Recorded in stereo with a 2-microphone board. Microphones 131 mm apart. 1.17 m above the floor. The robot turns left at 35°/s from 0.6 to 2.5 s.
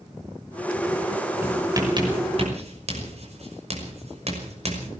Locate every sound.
1.4 s writing: 15° right (ahead or behind), 6 m; by 4.9 s 55° right (ahead or behind), 6 m